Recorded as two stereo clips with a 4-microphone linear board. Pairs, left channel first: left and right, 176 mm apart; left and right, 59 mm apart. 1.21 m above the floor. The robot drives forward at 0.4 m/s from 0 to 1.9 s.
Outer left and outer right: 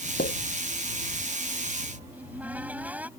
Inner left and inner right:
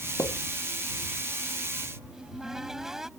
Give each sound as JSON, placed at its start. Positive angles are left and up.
{"t": 0.2, "sound": "a pop", "side_deg": 65}
{"t": 2.1, "sound": "a cupboard door", "side_deg": -10}